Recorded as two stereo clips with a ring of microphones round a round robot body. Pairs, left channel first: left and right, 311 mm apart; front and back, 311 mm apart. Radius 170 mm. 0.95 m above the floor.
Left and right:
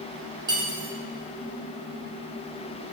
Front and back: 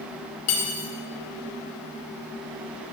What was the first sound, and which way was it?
Cutlery clinking, 10° right.